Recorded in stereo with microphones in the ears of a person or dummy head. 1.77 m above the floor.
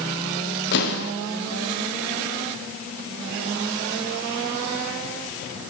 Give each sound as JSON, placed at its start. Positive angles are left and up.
{"t": 0.7, "sound": "an explosion", "side_deg": 55, "distance_m": 1.7}